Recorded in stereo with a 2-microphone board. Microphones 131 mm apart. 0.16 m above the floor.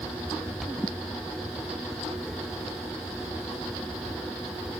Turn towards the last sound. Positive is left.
turn(degrees=-15)  # may be behind; listen again after turning